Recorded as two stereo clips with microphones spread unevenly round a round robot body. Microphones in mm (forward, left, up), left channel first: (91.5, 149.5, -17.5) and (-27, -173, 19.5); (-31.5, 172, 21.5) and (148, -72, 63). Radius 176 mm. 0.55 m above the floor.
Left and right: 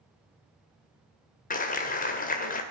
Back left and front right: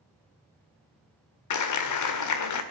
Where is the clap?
135° left, 1.8 m.